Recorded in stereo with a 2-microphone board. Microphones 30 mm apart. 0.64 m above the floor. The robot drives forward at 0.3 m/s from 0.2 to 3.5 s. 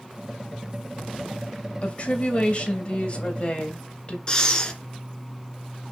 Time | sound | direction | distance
1.8 | a woman speaking | 40° left (ahead or behind) | 2.5 m
4.3 | breathing | 25° left (ahead or behind) | 1.7 m